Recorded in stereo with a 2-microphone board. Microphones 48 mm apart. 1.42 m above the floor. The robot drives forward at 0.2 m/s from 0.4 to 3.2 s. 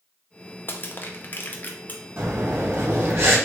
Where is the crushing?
45° left (ahead or behind), 0.7 m; by 2.0 s 35° left (ahead or behind), 0.8 m.